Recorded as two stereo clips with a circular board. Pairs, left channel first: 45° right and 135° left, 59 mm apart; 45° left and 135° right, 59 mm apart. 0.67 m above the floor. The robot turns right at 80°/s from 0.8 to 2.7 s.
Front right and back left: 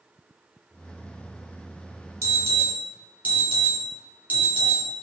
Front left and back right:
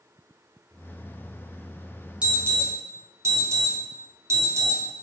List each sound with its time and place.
2.2 s an alarm: 155° left, 1.0 m; by 4.8 s 165° right, 1.0 m